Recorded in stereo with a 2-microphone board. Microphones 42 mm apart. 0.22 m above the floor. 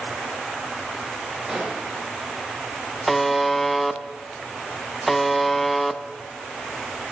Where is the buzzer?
Centre (ahead or behind), 0.9 m.